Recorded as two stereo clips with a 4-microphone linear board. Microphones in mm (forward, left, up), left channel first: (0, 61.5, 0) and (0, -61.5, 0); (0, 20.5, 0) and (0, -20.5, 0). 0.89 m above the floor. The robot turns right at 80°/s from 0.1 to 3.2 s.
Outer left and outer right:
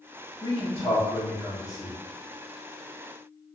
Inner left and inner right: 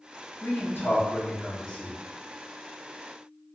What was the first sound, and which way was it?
A man speaking, 35° left (ahead or behind).